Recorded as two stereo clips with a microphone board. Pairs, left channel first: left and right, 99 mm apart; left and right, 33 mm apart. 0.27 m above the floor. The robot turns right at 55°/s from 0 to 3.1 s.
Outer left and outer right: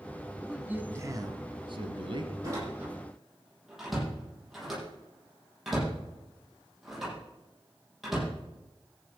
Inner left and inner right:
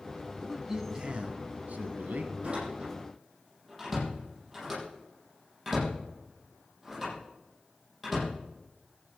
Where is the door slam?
40° right (ahead or behind), 8.5 m; by 8.3 s centre (ahead or behind), 8.5 m.